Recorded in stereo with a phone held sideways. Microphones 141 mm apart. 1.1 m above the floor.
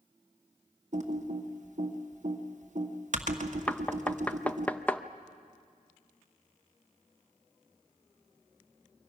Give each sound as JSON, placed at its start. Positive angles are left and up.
{"t": 0.9, "sound": "typing on a keyboard", "side_deg": -60, "distance_m": 1.4}
{"t": 3.7, "sound": "knocking", "side_deg": 10, "distance_m": 0.6}